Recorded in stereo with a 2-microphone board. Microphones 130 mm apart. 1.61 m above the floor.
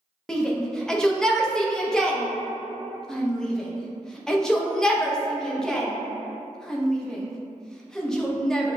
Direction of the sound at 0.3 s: 5° left (ahead or behind).